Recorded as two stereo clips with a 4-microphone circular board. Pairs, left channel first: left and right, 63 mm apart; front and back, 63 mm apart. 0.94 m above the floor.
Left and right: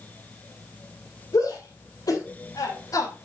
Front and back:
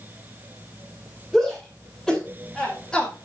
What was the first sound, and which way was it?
A shout, 100° left.